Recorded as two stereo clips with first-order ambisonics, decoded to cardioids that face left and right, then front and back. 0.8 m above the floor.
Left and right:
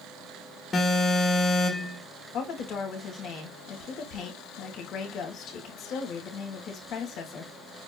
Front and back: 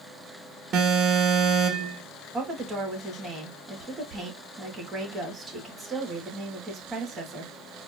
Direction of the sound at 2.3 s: 115° left.